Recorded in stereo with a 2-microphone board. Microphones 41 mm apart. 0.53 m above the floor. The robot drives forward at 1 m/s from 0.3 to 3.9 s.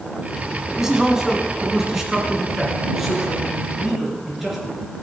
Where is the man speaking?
10° right (ahead or behind), 3.5 m; by 4.6 s 5° right (ahead or behind), 6.5 m.